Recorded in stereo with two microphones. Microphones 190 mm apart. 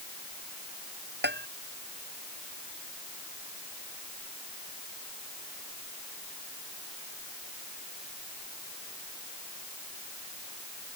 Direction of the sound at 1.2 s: 65° right (ahead or behind).